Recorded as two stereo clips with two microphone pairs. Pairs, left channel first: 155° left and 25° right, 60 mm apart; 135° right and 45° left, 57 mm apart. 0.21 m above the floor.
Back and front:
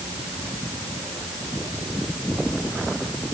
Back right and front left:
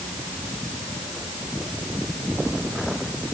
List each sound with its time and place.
Only background noise.